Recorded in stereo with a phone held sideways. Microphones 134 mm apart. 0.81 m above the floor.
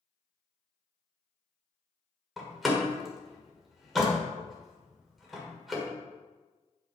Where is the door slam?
Centre (ahead or behind), 1.7 m.